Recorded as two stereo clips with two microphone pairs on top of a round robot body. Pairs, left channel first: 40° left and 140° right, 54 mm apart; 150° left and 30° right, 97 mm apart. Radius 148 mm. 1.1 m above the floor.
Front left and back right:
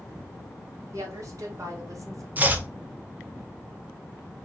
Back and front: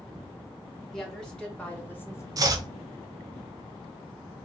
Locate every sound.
0.9 s a woman speaking: 125° right, 1.8 m; by 2.3 s 155° right, 1.1 m
2.4 s chopping: 85° right, 0.7 m